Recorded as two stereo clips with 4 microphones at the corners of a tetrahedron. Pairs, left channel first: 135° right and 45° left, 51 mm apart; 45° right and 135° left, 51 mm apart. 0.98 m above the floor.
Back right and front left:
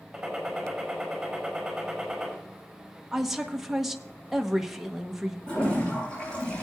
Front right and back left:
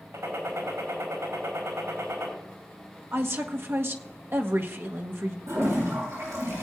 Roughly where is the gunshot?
Behind left.